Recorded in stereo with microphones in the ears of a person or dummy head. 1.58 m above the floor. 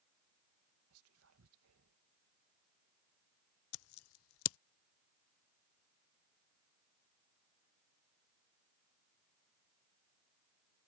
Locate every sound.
0.9 s whispering: 75° right (ahead or behind)
3.7 s scissors: 75° left (ahead or behind)